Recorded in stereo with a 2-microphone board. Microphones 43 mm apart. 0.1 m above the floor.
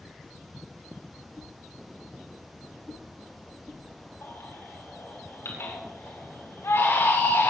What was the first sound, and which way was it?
A whoosh, 5° left (ahead or behind).